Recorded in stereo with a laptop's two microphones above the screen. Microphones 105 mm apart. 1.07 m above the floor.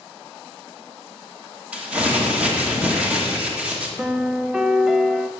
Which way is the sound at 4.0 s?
5° right (ahead or behind).